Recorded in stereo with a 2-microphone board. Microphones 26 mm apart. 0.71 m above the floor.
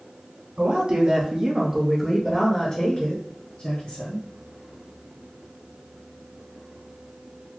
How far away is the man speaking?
About 1.2 m.